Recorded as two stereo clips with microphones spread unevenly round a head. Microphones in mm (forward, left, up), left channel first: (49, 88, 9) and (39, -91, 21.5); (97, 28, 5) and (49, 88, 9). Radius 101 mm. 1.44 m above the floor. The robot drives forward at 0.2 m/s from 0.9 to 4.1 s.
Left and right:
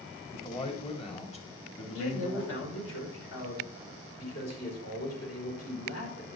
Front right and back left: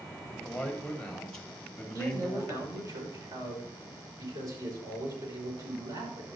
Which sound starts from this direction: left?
A man speaking, at 1.9 s.